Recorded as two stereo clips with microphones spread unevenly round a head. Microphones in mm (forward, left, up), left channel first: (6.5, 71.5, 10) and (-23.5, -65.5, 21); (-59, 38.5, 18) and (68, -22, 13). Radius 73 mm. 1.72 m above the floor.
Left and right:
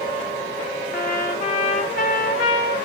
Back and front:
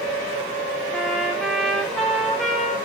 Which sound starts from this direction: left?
A trumpet, at 0.9 s.